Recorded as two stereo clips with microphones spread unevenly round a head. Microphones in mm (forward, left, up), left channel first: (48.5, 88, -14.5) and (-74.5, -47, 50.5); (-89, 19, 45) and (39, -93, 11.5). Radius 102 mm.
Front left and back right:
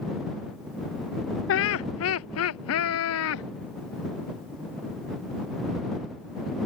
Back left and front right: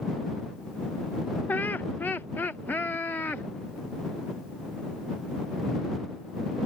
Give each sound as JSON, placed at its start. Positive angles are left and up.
{"t": 1.5, "sound": "laughter", "azimuth_deg": 70}